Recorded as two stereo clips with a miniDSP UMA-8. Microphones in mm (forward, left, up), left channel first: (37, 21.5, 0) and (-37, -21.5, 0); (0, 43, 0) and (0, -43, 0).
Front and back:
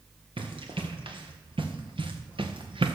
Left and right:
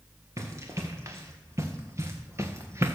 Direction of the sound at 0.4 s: 145° right.